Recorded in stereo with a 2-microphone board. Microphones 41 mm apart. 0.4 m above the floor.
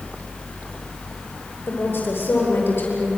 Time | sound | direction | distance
1.7 | a woman speaking | 65° left (ahead or behind) | 9 m